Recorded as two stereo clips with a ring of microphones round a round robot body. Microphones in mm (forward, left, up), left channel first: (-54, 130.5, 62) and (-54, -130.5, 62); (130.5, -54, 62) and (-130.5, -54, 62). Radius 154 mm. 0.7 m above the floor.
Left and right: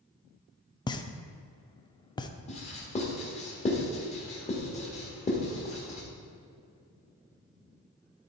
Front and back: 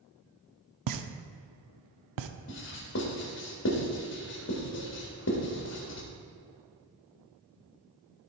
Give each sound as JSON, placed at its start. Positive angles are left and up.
{"t": 0.9, "sound": "a pop", "azimuth_deg": 165, "distance_m": 0.5}
{"t": 2.5, "sound": "writing", "azimuth_deg": 30, "distance_m": 1.7}